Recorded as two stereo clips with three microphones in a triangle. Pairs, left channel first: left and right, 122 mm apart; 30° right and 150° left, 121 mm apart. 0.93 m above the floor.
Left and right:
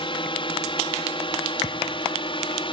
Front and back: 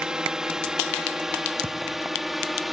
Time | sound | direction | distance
0.0 | a drone | 70° left | ?
1.6 | a thud | 110° left | ?